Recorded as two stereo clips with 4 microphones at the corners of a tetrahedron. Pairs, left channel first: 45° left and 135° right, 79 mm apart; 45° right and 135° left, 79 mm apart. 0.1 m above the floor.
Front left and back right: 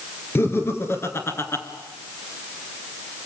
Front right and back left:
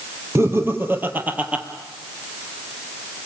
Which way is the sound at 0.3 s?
95° left.